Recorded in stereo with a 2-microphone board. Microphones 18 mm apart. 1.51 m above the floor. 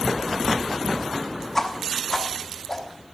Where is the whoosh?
15° left (ahead or behind), 1.0 m.